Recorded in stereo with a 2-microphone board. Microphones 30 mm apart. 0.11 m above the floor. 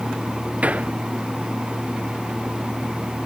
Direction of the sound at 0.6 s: 50° right (ahead or behind).